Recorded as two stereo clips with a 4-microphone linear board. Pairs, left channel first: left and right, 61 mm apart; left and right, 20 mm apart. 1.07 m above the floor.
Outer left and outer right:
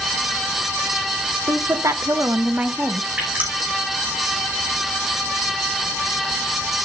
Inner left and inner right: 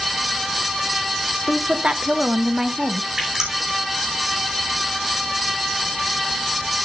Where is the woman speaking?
70° right (ahead or behind), 1.6 m; by 3.1 s centre (ahead or behind), 1.1 m.